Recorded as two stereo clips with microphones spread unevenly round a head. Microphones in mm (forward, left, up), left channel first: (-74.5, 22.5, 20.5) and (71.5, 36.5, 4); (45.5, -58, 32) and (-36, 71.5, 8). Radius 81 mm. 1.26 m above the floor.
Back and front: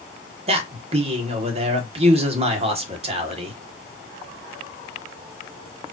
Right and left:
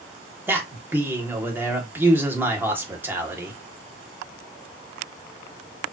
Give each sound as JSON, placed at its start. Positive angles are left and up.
{"t": 0.5, "sound": "a man speaking", "azimuth_deg": 50, "distance_m": 1.2}